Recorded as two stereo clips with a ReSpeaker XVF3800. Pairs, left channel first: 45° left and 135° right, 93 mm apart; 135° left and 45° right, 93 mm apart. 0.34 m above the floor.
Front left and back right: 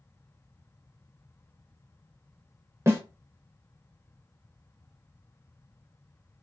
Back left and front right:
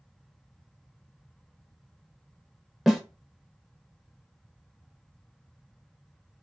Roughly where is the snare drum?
Behind right.